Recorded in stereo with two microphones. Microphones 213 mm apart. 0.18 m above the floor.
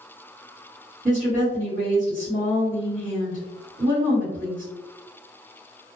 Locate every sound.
1.1 s a woman speaking: 40° right (ahead or behind), 1.9 m